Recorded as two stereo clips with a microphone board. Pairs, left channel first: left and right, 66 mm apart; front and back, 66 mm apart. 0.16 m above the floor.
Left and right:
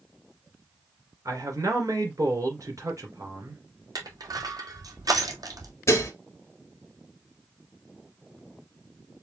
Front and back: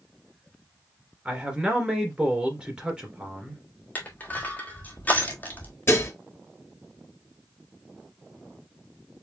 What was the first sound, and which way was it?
A man speaking, 110° right.